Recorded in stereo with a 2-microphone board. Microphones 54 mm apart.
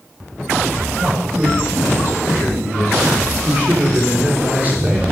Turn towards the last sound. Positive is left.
turn(degrees=-35)  # may be behind; listen again after turning